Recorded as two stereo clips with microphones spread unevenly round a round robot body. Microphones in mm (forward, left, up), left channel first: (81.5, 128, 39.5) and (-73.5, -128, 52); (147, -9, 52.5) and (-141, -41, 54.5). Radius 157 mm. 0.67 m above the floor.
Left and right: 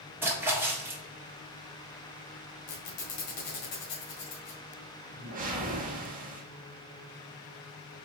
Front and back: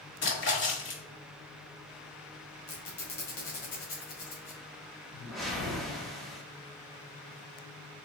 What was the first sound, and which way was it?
A splash, 35° right.